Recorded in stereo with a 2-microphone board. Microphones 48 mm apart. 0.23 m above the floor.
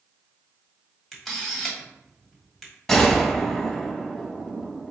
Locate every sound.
1.1 s a camera shutter: 5° left (ahead or behind), 1.4 m
2.9 s a gunshot: 10° left (ahead or behind), 0.7 m